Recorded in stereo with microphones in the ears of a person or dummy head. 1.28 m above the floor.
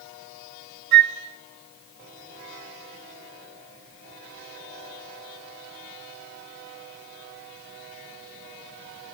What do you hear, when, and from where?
0.9 s a flute: 50° right (ahead or behind), 1.3 m